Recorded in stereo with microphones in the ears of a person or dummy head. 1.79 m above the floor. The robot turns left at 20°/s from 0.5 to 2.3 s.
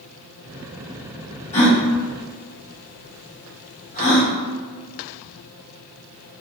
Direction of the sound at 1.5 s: 30° left (ahead or behind).